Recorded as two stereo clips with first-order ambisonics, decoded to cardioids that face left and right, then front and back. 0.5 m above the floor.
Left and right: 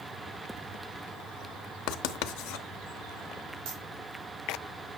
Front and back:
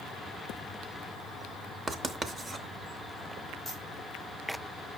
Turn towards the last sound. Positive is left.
turn(degrees=-95)